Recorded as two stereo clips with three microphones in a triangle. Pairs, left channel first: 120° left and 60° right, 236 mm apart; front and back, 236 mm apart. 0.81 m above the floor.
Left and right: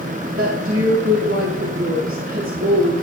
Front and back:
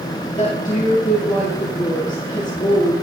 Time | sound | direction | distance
0.4 | a woman speaking | 60° right | 2 m